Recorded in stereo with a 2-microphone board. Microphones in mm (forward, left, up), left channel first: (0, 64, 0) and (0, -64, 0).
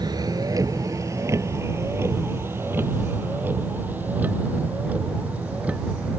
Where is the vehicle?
30° right (ahead or behind); by 6.2 s 10° right (ahead or behind).